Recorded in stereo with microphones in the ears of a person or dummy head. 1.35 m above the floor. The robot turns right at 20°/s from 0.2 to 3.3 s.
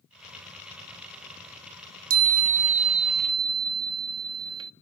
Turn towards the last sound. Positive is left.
turn(degrees=-25)  # may be behind; listen again after turning